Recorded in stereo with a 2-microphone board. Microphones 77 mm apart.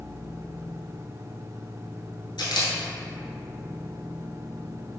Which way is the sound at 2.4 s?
85° left.